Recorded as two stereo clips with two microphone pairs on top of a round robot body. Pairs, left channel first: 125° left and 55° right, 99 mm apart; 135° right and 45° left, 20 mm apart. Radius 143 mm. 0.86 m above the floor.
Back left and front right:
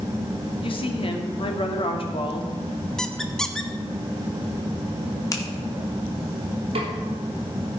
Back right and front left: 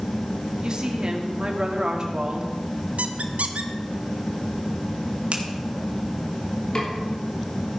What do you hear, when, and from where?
0.6 s a woman speaking: 100° left, 1.9 m
3.0 s a squeak: 40° left, 0.7 m
5.3 s a finger snap: 70° left, 1.9 m
6.8 s a snare drum: 85° right, 3 m